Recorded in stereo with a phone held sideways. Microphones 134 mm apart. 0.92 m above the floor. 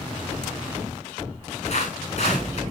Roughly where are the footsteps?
Left.